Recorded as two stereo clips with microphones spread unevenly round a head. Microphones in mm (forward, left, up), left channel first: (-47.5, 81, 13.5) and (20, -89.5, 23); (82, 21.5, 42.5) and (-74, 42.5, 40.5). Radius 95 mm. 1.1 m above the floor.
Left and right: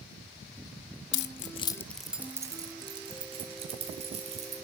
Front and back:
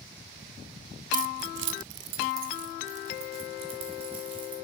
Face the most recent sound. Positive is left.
turn(degrees=-125)